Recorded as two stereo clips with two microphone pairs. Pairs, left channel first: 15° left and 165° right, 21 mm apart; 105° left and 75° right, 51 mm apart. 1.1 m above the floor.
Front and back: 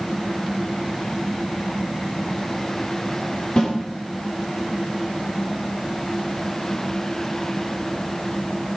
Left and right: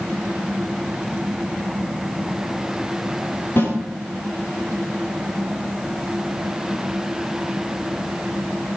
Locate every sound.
3.6 s a snare drum: 60° left, 7 m